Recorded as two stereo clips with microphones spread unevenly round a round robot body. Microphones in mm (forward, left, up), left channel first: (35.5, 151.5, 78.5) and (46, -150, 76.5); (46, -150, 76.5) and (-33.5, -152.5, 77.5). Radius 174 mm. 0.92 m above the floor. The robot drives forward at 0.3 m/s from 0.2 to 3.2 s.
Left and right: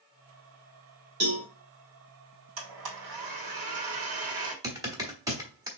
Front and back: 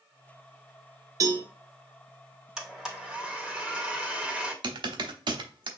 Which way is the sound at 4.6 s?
170° right.